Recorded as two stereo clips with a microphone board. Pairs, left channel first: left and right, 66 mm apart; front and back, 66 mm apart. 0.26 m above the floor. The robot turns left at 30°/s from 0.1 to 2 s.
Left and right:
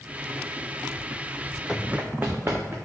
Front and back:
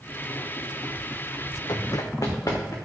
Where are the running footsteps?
Straight ahead, 0.7 m; by 2.8 s 35° right, 2 m.